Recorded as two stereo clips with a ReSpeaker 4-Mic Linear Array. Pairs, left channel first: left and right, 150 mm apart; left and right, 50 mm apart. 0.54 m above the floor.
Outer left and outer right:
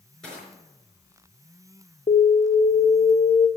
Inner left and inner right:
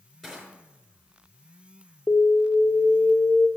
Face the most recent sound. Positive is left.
turn(degrees=55)  # may be behind; listen again after turning